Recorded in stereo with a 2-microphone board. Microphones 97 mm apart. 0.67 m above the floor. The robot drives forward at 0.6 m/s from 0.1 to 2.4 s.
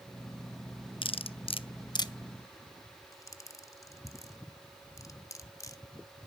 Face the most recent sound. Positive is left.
turn(degrees=35)  # may be behind; listen again after turning